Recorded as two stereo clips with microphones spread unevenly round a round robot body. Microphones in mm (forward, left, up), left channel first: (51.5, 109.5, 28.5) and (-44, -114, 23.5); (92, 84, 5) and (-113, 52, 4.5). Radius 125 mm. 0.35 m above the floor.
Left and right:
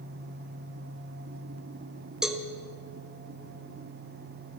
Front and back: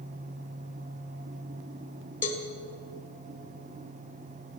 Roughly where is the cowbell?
Ahead right.